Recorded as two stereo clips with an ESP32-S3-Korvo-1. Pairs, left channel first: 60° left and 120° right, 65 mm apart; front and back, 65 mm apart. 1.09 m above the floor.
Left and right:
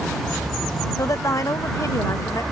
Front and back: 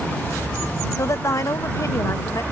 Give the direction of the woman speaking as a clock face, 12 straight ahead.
11 o'clock.